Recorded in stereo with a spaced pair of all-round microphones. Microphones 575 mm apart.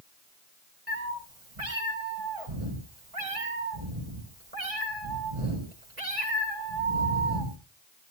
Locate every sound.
0.9 s a cat meowing: 70° right (ahead or behind), 4 m